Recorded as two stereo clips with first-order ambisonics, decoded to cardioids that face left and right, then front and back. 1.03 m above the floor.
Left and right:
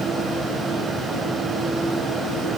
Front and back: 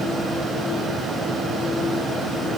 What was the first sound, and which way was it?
Only background noise.